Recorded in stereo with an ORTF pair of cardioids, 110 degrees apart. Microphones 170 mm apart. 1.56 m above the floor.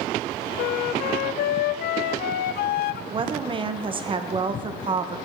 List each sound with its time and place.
0.6 s a flute: 65° left, 0.6 m
3.1 s a woman speaking: 30° right, 1.2 m